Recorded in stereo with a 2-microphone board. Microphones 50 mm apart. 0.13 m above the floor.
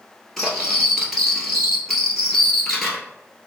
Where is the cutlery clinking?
5° left (ahead or behind), 1.5 m.